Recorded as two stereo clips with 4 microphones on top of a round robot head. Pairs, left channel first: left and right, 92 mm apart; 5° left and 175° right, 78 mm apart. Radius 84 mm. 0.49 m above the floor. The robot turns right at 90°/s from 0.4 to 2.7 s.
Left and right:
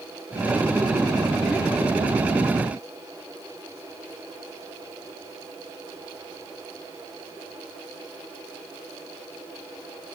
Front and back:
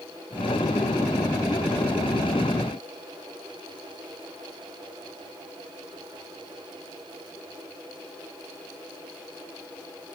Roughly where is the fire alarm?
I don't hear a fire alarm.